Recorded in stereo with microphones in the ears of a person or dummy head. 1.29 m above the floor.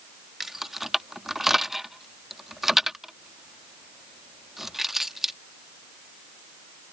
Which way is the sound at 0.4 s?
Centre (ahead or behind).